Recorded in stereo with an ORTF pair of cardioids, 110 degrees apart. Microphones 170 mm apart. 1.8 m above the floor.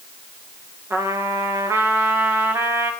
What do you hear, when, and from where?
0.9 s a trumpet: 15° right, 2.5 m